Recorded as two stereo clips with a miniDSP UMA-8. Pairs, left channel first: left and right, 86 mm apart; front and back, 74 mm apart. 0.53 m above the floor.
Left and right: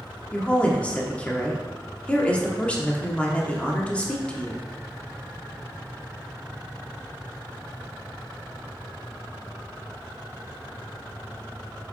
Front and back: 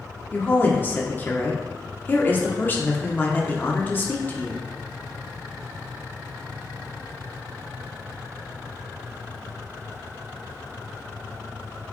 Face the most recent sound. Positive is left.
turn(degrees=30)